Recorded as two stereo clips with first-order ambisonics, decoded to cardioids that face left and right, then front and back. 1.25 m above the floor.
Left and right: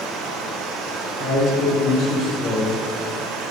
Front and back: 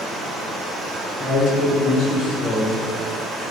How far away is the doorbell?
I don't hear a doorbell.